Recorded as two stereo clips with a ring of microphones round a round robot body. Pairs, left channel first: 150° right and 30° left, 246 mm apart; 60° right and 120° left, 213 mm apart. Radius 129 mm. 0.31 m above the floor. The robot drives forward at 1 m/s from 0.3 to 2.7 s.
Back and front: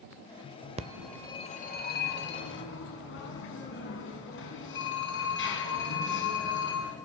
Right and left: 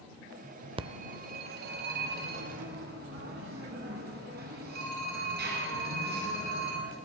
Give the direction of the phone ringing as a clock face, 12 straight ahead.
10 o'clock.